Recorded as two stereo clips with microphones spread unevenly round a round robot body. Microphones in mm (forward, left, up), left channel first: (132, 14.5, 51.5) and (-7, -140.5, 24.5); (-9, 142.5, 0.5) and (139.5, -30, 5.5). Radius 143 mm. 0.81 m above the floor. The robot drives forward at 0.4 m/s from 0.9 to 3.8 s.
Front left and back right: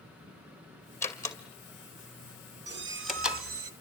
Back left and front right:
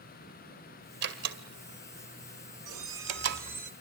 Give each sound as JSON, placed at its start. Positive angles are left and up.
{"t": 1.0, "sound": "a door slam", "azimuth_deg": -30, "distance_m": 2.5}
{"t": 2.7, "sound": "a squeak", "azimuth_deg": -90, "distance_m": 1.0}